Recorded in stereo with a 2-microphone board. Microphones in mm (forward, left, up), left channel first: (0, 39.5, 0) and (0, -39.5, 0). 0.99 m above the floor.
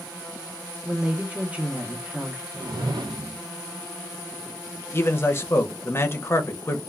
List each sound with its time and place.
0.8 s a woman speaking: 20° right (ahead or behind), 0.8 m
2.5 s a whoosh: 65° right (ahead or behind), 0.5 m
4.9 s a man speaking: 30° left (ahead or behind), 0.6 m